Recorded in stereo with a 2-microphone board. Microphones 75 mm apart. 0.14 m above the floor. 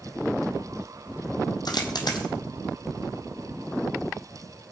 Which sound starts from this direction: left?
A dropped coin, at 1.6 s.